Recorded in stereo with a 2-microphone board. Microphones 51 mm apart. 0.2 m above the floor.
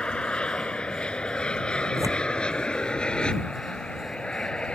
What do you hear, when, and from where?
0.0 s an aircraft: 20° left (ahead or behind); by 4.8 s 15° left (ahead or behind)
2.0 s tearing paper: 85° right